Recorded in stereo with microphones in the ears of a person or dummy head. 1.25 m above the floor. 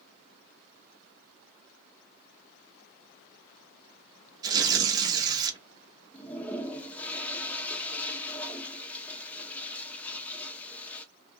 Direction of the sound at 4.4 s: 25° right (ahead or behind).